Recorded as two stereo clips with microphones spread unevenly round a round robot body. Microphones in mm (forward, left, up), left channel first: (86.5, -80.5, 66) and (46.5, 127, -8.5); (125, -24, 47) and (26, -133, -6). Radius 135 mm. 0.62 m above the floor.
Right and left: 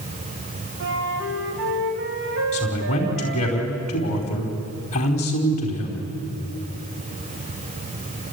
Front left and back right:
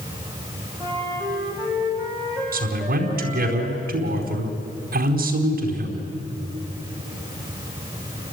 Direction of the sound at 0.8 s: 135° left.